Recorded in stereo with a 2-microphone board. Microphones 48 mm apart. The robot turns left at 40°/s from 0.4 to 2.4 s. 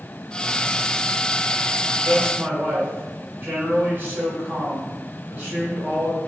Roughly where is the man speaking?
Right.